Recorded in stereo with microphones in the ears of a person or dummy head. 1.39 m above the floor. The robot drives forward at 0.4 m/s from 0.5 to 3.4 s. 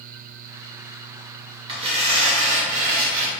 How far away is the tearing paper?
About 1.3 m.